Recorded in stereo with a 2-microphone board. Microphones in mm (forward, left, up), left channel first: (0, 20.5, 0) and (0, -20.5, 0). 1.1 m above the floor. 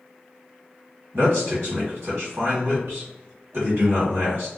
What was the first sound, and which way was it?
A man speaking, 75° right (ahead or behind).